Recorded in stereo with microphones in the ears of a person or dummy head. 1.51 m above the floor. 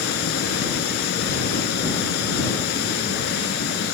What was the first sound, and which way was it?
Running water, 60° left (ahead or behind).